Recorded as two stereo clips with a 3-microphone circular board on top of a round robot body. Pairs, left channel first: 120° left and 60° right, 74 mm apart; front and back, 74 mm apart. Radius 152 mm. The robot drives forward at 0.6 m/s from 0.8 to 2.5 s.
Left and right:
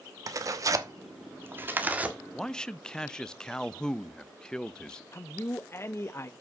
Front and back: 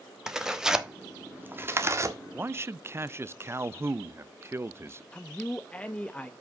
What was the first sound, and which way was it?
Tearing paper, 100° right.